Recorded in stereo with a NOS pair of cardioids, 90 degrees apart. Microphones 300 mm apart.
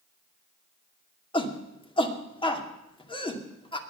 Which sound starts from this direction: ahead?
A shout, at 1.3 s.